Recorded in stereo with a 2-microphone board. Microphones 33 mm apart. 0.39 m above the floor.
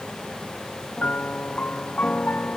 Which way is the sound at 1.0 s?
55° left (ahead or behind).